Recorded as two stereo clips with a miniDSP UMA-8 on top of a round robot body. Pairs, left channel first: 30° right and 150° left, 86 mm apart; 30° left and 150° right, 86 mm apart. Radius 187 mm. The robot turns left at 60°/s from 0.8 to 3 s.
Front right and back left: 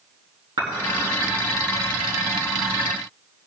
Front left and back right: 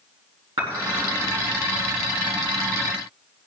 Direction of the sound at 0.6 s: 175° right.